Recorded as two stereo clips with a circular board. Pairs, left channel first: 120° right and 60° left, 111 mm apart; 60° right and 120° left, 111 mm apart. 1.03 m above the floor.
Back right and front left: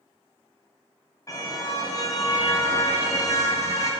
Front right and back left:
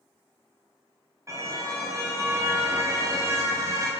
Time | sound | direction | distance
1.3 | a car horn | straight behind | 4 m